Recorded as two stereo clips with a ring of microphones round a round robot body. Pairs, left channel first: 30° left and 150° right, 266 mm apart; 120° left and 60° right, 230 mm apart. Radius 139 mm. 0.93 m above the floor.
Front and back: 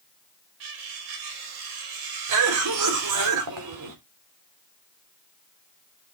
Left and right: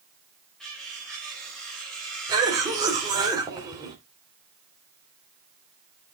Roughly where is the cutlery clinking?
Behind right.